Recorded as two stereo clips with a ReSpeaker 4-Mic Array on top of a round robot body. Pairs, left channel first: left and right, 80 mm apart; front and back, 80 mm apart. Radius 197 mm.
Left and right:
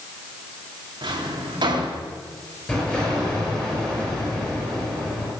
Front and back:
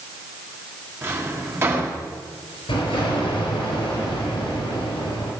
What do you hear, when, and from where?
1.0 s a drawer: 120° right, 2.5 m
2.7 s an explosion: 15° left, 5 m